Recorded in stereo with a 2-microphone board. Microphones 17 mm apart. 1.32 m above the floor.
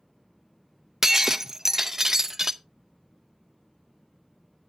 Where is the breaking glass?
20° right (ahead or behind), 0.5 m.